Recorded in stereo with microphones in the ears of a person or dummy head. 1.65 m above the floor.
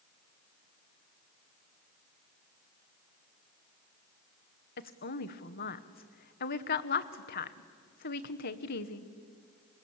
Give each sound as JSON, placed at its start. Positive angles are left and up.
{"t": 4.8, "sound": "a woman speaking", "side_deg": 45, "distance_m": 1.1}